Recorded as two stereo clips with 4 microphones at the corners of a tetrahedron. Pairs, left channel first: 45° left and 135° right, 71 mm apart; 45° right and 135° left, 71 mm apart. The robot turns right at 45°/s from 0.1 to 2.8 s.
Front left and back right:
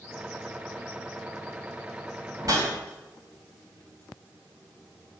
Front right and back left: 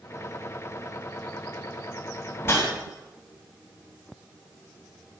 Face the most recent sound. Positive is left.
turn(degrees=-90)